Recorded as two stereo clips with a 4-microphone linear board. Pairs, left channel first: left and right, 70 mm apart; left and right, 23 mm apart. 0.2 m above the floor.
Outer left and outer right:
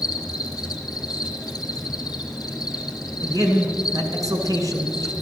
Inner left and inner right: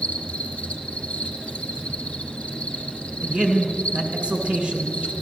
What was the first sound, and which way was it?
An insect, 65° left (ahead or behind).